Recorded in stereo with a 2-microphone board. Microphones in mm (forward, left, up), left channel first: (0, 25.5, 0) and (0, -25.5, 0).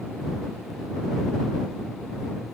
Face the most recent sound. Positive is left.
No sound to turn to.